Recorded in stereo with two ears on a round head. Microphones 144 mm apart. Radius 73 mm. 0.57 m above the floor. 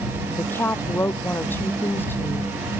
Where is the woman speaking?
15° left (ahead or behind).